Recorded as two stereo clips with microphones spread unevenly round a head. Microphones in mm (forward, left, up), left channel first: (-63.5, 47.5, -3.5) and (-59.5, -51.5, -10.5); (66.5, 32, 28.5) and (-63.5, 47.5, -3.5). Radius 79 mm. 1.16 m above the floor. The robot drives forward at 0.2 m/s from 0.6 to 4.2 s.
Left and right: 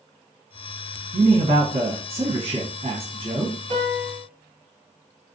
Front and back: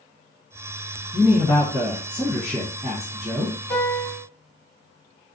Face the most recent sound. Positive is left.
turn(degrees=-65)